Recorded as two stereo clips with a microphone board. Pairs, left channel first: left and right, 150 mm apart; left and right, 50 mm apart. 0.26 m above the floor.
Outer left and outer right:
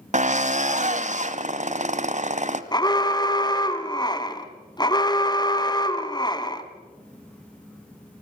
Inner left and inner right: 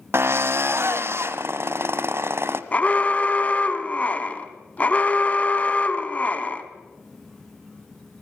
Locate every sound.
0.1 s a drill: 55° right (ahead or behind), 1.3 m
2.7 s an alarm: 30° left (ahead or behind), 1.8 m